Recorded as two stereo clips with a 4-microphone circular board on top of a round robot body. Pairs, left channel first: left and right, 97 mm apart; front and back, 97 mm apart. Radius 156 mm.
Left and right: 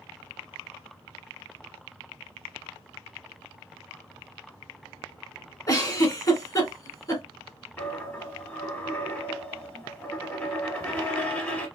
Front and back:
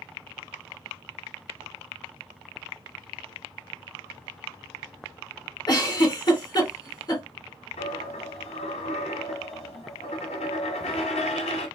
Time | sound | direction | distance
5.7 | a giggle | 45° left | 2 m
7.8 | a dropped coin | 15° left | 1.0 m